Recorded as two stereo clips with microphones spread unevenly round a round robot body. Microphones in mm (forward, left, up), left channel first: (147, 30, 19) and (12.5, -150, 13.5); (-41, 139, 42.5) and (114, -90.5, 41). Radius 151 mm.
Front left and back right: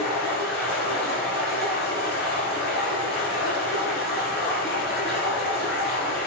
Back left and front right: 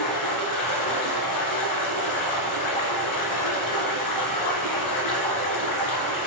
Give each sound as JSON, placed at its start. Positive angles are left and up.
{"t": 0.0, "sound": "running water", "azimuth_deg": 115, "distance_m": 2.5}